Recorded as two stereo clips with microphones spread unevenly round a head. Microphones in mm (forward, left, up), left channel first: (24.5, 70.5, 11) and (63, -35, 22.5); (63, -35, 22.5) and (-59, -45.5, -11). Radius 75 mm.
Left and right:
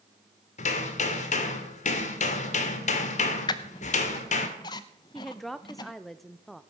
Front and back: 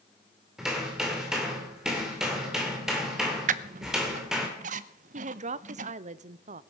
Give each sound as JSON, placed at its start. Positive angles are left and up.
{"t": 0.6, "sound": "hammering", "azimuth_deg": 95, "distance_m": 2.5}
{"t": 3.5, "sound": "a squeak", "azimuth_deg": 165, "distance_m": 0.6}
{"t": 5.1, "sound": "a woman speaking", "azimuth_deg": -165, "distance_m": 0.8}